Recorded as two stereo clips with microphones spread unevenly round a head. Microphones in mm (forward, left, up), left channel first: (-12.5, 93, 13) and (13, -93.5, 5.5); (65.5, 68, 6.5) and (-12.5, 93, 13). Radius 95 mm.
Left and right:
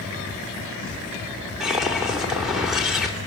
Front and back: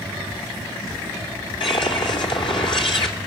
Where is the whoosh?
5° left, 3 m.